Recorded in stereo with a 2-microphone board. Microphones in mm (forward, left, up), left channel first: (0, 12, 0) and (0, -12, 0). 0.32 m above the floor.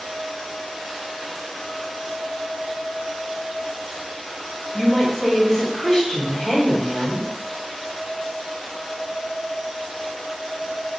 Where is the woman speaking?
30° left (ahead or behind), 1.4 m.